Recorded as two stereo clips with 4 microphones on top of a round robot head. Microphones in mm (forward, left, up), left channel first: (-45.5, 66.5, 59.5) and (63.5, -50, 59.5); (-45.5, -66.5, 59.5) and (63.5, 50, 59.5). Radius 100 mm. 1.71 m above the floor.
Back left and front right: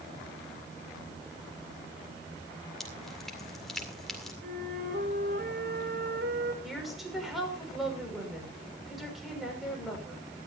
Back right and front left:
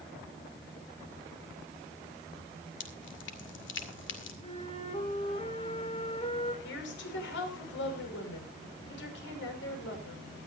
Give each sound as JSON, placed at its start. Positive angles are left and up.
{"t": 2.8, "sound": "dripping", "azimuth_deg": -140, "distance_m": 2.0}
{"t": 4.4, "sound": "a flute", "azimuth_deg": -75, "distance_m": 4.5}
{"t": 6.6, "sound": "a woman speaking", "azimuth_deg": -135, "distance_m": 6.0}